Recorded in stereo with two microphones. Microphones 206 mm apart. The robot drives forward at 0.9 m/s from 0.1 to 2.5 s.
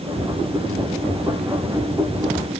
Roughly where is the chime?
No chime in this recording.